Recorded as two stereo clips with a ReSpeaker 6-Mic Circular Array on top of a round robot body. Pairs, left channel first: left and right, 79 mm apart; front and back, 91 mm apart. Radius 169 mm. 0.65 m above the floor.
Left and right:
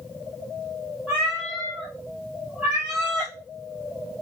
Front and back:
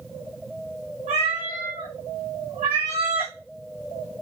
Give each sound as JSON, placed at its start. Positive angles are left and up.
{"t": 1.1, "sound": "a cat meowing", "azimuth_deg": 180, "distance_m": 0.8}